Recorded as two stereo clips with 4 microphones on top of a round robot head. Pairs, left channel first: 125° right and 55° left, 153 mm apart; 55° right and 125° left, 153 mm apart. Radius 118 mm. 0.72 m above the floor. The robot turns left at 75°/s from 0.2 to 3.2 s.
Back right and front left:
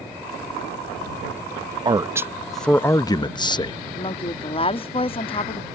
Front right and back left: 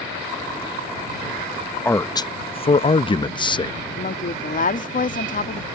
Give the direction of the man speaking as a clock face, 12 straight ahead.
12 o'clock.